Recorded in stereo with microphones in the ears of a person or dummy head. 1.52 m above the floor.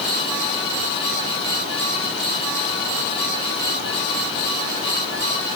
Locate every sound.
Only background noise.